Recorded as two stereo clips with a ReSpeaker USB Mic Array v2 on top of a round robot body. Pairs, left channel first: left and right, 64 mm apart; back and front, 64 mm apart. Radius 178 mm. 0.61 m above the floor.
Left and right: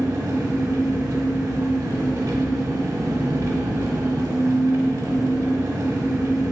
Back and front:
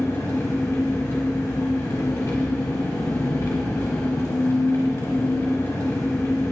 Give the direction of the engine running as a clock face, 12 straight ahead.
4 o'clock.